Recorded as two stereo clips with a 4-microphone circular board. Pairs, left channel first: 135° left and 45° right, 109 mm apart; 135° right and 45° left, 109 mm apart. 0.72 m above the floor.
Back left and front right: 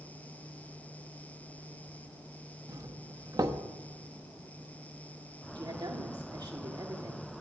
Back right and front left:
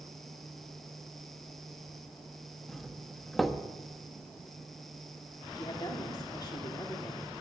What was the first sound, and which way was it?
A doorbell, 45° right.